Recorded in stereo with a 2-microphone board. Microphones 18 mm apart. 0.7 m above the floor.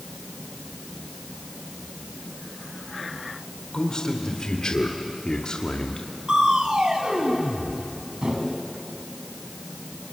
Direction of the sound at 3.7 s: 40° left (ahead or behind).